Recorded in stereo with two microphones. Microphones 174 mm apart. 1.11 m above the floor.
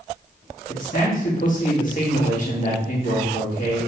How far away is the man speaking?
About 1.5 m.